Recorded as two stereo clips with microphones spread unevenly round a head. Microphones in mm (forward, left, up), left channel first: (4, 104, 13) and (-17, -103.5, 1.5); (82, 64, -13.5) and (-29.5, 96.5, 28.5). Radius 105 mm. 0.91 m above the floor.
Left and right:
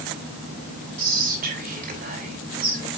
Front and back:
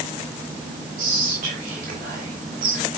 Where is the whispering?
145° right, 5 m.